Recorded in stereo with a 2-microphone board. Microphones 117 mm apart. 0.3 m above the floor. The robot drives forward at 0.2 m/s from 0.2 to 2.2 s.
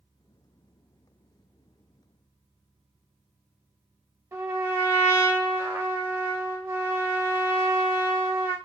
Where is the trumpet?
30° right (ahead or behind), 0.9 m.